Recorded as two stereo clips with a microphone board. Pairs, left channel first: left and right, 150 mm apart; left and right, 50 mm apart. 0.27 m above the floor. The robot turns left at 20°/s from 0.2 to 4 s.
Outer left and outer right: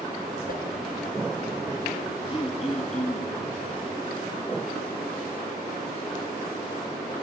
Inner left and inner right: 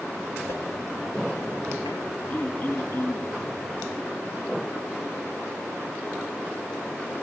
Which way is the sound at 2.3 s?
35° left (ahead or behind).